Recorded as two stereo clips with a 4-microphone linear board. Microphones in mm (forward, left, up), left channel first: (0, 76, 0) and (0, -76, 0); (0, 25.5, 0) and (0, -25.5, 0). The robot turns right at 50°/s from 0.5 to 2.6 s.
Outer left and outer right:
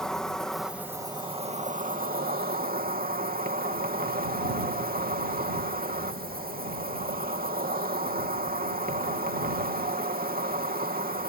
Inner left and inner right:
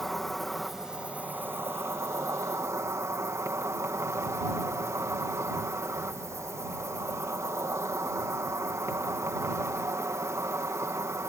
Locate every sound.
0.0 s an insect: 175° left; by 11.3 s 80° right